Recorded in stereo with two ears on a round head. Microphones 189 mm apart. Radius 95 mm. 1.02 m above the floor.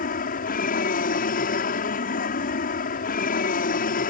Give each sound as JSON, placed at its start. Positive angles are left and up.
{"t": 0.0, "sound": "an aircraft", "side_deg": 45}